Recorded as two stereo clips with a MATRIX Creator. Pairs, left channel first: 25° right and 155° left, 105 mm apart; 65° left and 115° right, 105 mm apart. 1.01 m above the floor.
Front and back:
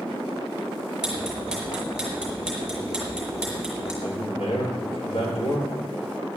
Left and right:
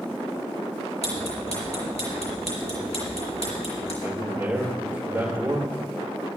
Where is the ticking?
75° left, 5 m.